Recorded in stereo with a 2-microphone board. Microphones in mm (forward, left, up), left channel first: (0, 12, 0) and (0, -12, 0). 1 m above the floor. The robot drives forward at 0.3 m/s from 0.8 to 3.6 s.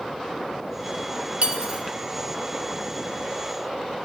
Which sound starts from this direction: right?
Cutlery clinking, at 1.4 s.